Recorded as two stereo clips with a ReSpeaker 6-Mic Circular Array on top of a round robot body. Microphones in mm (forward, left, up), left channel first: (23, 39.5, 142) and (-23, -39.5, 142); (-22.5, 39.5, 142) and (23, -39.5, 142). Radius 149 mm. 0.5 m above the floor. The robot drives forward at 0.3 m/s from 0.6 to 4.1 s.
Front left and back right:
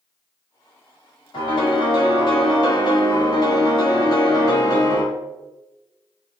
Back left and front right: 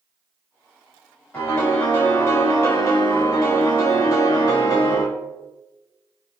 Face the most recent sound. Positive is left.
turn(degrees=95)